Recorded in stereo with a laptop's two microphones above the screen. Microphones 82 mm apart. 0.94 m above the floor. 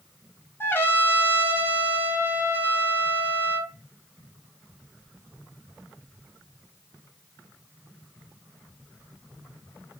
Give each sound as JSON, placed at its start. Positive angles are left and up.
{"t": 0.6, "sound": "a trumpet", "side_deg": 30, "distance_m": 0.8}